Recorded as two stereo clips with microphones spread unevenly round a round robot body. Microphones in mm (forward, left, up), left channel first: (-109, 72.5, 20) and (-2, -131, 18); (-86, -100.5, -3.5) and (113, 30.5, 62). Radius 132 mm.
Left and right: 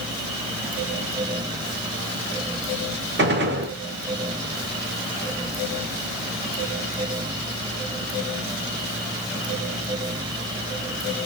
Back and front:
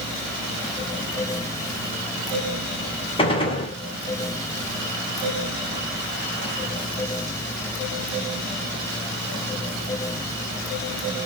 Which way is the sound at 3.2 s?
95° right.